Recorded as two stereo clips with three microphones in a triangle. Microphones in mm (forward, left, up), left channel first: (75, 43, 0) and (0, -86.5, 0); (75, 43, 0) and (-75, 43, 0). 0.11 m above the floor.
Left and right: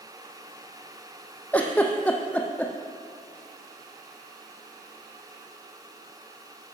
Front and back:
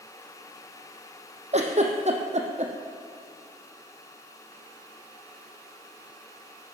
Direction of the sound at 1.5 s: 140° left.